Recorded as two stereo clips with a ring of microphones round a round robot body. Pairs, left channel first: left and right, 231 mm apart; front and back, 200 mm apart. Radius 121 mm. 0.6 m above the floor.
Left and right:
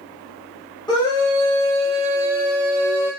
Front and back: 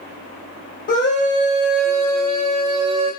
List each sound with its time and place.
0.9 s a scream: 25° left, 1.1 m; by 3.1 s 150° left, 0.9 m